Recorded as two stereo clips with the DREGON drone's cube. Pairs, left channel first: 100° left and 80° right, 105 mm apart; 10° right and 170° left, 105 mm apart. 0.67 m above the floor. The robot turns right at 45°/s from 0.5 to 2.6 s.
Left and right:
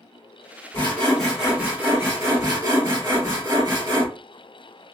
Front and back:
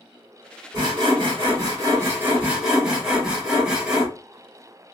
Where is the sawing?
165° left, 1.5 m; by 4.1 s 115° right, 1.5 m.